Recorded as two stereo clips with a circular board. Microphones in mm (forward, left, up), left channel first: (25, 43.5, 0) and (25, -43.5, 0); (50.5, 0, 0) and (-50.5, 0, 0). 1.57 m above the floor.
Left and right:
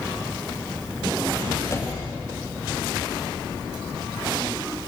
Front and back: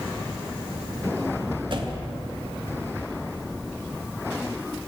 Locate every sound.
1.7 s a door slam: 145° left, 2.5 m